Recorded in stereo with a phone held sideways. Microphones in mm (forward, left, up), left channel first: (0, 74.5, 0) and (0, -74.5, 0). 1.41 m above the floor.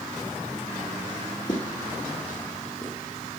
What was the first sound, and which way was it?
Footsteps, 60° left (ahead or behind).